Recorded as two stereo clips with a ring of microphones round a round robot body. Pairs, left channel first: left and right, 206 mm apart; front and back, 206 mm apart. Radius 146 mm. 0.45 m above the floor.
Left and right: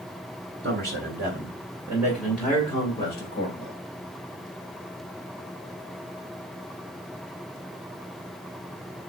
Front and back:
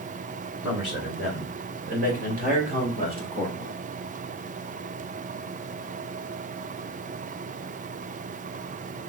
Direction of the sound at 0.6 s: 110° right.